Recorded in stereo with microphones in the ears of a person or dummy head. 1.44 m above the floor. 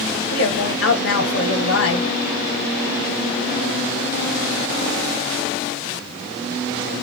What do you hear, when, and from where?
0.3 s a woman speaking: 80° left, 1.4 m